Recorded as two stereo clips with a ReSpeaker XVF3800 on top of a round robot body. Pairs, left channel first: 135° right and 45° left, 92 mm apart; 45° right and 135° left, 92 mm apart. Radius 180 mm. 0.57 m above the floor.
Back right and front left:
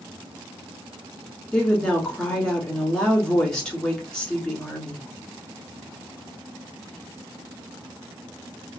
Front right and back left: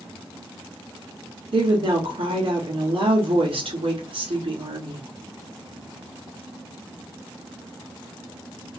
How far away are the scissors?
I don't hear scissors.